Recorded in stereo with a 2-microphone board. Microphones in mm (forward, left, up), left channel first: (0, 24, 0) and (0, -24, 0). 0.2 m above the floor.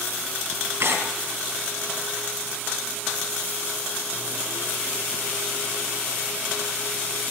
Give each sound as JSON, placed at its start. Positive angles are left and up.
{"t": 0.8, "sound": "tearing paper", "side_deg": -55, "distance_m": 2.0}